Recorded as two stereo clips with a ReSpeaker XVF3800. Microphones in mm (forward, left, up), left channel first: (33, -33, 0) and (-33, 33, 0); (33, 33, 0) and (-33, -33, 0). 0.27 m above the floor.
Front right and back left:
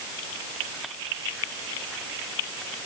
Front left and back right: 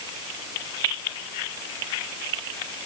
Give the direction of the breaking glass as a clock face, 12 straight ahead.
I don't hear breaking glass.